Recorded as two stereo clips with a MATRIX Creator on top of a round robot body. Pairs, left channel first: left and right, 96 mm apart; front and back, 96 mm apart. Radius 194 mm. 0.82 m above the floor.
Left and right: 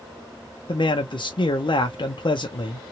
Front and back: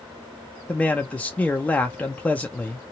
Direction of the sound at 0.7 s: 75° left.